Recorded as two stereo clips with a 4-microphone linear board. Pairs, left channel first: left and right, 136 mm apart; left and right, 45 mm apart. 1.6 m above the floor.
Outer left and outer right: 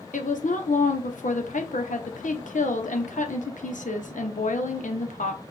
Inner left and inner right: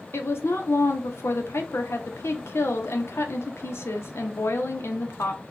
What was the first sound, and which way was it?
A woman speaking, 70° left (ahead or behind).